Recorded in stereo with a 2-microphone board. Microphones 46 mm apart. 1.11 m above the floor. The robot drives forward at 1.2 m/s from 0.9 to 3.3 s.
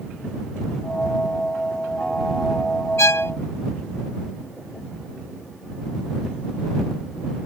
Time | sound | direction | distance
3.0 | a violin | 75° left (ahead or behind) | ?